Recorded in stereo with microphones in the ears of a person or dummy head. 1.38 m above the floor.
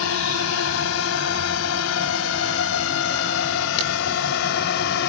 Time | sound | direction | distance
0.0 | a drone | 85° left | ?